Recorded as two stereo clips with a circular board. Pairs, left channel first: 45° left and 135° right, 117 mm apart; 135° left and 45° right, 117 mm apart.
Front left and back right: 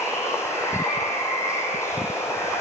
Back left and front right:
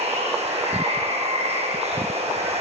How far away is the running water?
About 7 m.